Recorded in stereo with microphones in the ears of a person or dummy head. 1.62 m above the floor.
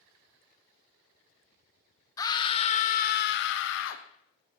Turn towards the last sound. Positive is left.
turn(degrees=75)  # may be behind; listen again after turning